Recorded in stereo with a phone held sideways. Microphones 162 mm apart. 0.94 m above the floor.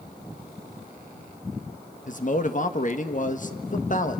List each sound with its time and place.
2.1 s a man speaking: 50° left (ahead or behind), 1.5 m